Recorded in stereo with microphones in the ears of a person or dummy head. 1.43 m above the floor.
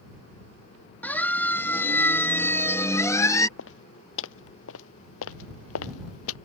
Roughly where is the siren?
Centre.